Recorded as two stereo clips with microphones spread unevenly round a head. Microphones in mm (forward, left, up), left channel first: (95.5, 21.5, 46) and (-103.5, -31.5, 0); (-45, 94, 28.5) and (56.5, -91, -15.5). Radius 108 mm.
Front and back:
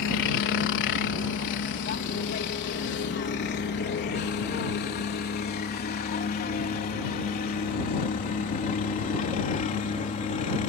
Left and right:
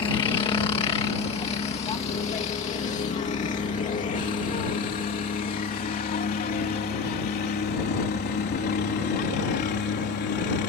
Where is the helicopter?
50° left; by 10.7 s 75° left.